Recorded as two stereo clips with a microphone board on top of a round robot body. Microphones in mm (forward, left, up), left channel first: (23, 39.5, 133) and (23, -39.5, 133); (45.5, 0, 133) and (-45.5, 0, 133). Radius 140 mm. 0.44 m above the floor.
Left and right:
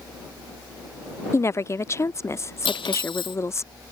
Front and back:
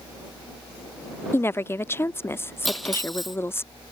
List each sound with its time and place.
1.3 s a woman speaking: 55° left
2.6 s cutlery clinking: 90° left